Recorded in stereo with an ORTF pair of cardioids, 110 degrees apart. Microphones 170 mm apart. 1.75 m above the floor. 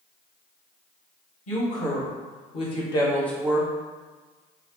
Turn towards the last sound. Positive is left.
turn(degrees=-30)